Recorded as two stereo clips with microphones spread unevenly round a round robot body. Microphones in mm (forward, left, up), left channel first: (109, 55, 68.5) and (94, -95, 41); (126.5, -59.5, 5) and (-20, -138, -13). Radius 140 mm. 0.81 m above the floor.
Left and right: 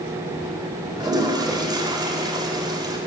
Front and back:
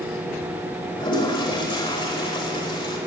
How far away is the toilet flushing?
About 4.5 m.